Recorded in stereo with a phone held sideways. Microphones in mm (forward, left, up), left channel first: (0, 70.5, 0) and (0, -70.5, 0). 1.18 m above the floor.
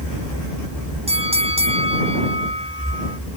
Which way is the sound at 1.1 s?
45° right (ahead or behind).